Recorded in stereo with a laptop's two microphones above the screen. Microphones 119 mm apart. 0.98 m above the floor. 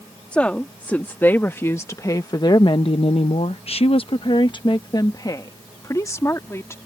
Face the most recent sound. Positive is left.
turn(degrees=25)  # may be behind; listen again after turning